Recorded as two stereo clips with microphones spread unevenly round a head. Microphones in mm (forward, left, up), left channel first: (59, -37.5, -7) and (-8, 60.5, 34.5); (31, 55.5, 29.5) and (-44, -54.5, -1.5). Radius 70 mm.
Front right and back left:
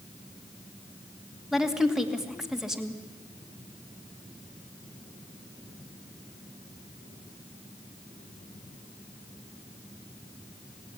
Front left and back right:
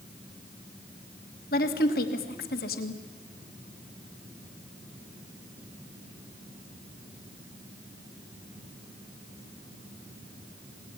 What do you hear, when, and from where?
1.5 s a woman speaking: 30° left, 2.5 m